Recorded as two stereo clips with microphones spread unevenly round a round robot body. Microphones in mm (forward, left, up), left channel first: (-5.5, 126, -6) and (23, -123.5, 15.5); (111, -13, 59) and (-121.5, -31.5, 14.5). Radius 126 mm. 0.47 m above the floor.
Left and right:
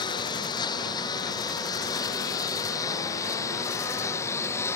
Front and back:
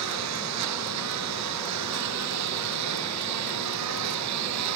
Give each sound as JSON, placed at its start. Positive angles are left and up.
{"t": 0.0, "sound": "a lawn mower", "azimuth_deg": 170}